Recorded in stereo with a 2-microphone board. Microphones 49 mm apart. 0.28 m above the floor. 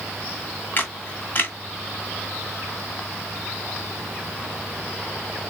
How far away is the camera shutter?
About 1.4 m.